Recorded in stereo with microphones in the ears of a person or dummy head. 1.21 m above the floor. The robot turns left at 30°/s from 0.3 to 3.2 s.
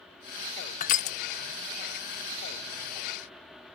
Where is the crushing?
35° left (ahead or behind), 0.5 m.